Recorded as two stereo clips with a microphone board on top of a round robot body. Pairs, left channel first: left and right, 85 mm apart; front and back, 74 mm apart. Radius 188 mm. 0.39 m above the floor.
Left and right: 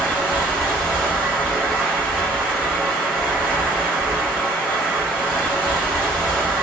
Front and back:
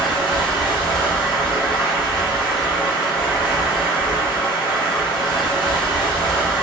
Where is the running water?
15° left, 1.4 m.